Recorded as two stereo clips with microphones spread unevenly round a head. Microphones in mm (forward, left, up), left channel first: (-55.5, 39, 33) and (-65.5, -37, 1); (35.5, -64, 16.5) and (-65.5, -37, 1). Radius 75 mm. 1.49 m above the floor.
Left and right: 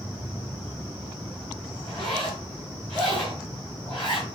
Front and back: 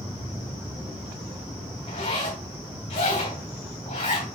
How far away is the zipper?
About 3 m.